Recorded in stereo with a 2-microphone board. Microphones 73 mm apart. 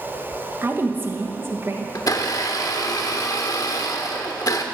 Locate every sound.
0.6 s a woman speaking: 35° right (ahead or behind), 1.3 m
1.9 s a blender: 55° left (ahead or behind), 1.1 m